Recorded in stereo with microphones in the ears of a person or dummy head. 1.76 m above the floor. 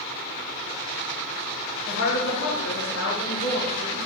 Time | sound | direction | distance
1.9 | a woman speaking | 90° left | 3 m